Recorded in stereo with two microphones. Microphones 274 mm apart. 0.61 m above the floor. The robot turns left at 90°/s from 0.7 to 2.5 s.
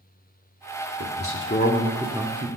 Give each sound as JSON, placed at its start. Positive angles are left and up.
{"t": 1.0, "sound": "a man speaking", "azimuth_deg": 90, "distance_m": 1.1}